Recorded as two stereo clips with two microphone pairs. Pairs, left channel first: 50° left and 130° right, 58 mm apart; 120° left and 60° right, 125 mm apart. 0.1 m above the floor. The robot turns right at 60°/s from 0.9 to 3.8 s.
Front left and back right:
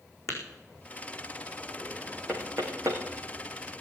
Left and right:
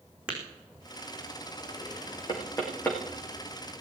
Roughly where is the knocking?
Behind.